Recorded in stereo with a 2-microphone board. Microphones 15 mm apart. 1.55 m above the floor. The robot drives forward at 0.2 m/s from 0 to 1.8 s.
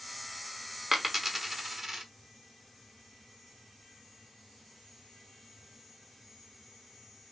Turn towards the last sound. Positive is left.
turn(degrees=-35)  # may be behind; listen again after turning